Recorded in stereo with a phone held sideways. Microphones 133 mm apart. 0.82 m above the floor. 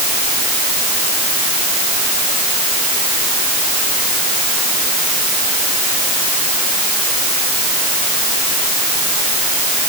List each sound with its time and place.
Only background noise.